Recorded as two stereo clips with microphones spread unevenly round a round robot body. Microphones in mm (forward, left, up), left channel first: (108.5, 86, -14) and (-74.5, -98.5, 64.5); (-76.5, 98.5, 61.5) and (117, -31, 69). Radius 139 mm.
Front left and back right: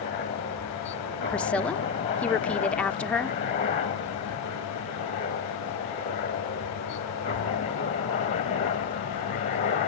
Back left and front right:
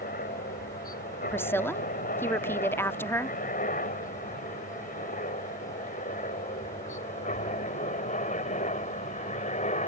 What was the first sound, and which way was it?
A helicopter, 100° left.